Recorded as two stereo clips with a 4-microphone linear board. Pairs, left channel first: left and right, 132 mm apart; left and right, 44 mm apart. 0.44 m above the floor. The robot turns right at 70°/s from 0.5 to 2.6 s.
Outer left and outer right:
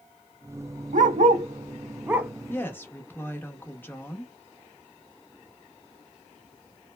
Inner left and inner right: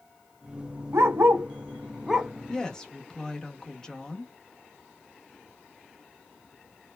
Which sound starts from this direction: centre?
A woman speaking, at 2.5 s.